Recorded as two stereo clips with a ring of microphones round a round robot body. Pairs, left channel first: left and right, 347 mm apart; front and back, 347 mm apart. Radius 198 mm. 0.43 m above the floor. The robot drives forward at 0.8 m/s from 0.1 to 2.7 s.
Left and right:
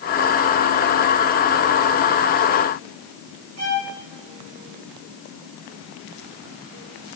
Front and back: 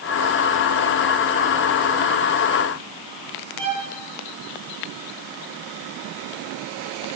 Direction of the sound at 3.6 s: 135° right.